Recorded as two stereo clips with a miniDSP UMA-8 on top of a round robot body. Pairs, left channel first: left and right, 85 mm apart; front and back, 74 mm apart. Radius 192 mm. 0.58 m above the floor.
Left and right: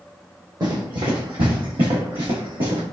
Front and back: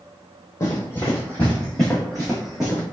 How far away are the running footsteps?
About 1.2 m.